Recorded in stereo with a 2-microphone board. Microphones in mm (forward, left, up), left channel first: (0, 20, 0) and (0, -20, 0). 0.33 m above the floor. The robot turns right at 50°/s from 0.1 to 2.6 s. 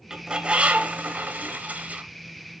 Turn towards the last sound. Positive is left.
turn(degrees=-30)